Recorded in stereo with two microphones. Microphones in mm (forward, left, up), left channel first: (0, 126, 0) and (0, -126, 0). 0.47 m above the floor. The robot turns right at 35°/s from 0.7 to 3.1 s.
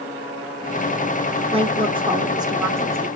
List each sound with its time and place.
1.5 s a woman speaking: 20° right (ahead or behind), 0.8 m; by 3.1 s 10° right (ahead or behind), 0.8 m